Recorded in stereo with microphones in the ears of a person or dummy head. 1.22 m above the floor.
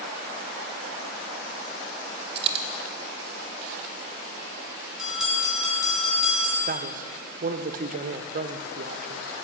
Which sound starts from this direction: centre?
A bell, at 5.0 s.